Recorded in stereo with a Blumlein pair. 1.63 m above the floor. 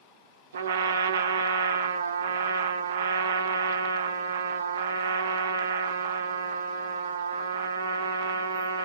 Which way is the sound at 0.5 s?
70° right.